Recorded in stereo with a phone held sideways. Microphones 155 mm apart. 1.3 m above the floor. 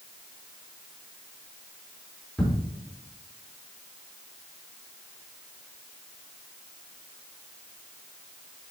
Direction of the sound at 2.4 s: Centre (ahead or behind).